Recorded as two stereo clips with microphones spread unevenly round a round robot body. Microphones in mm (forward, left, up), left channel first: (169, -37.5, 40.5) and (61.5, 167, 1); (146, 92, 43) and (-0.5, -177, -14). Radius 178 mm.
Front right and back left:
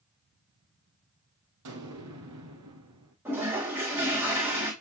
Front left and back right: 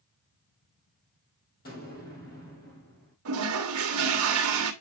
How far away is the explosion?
About 4 m.